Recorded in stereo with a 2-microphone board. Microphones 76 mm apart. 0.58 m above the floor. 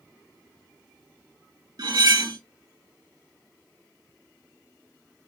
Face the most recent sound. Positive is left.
turn(degrees=-60)  # may be behind; listen again after turning